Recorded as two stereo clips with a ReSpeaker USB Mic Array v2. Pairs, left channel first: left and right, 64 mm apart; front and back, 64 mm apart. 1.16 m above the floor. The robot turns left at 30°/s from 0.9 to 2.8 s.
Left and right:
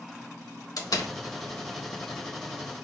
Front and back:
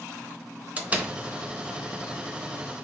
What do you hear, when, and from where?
0.8 s a door slam: 115° left, 0.8 m; by 1.1 s 105° left, 0.8 m